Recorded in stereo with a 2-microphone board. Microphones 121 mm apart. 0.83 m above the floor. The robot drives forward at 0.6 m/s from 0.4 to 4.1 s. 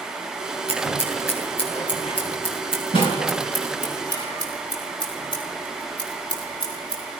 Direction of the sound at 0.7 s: 50° left (ahead or behind).